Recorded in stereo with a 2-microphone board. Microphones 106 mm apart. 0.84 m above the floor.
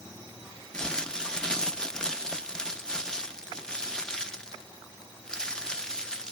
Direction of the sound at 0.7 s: 5° left (ahead or behind).